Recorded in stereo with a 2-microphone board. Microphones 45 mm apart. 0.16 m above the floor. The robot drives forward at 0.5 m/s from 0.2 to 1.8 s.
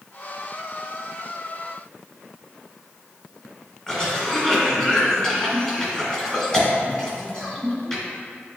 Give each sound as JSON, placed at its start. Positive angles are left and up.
{"t": 3.9, "sound": "a cough", "side_deg": 15, "distance_m": 1.3}